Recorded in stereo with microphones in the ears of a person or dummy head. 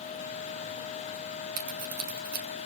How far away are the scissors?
About 1.3 m.